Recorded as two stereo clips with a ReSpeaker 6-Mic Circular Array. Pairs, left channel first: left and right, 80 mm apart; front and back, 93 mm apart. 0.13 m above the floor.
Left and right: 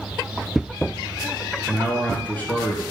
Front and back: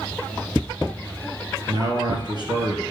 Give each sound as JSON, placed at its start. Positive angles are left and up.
{"t": 1.7, "sound": "a man speaking", "azimuth_deg": 155, "distance_m": 2.5}